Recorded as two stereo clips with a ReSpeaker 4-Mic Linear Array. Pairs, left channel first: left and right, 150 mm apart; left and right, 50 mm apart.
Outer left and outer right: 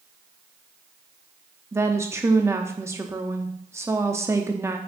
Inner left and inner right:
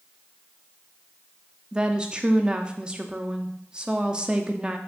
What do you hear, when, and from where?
1.7 s a woman speaking: 20° right (ahead or behind), 0.7 m